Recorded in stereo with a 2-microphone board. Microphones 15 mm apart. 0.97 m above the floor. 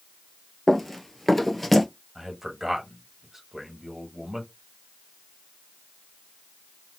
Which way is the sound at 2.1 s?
25° right (ahead or behind).